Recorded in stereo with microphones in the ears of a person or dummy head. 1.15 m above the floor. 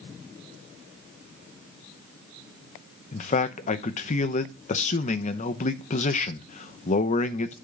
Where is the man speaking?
40° left (ahead or behind), 0.7 m.